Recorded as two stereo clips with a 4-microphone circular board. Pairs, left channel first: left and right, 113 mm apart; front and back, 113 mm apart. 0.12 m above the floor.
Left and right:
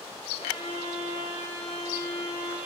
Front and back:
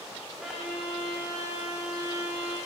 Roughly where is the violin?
Left.